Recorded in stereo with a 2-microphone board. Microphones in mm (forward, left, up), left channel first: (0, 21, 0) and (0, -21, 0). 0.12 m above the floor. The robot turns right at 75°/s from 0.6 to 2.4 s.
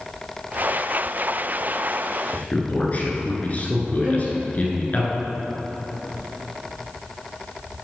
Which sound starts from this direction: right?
A violin, at 4.0 s.